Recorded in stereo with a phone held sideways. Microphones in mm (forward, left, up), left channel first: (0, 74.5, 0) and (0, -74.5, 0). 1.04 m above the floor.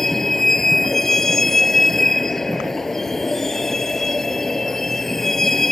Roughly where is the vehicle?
Centre.